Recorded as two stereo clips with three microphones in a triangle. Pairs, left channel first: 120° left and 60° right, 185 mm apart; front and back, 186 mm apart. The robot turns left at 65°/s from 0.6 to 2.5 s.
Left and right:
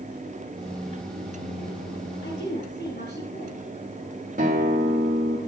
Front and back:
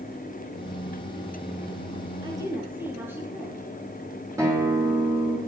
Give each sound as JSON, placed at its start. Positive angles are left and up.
{"t": 2.2, "sound": "a woman speaking", "azimuth_deg": 120, "distance_m": 5.0}
{"t": 4.4, "sound": "a guitar", "azimuth_deg": -105, "distance_m": 4.5}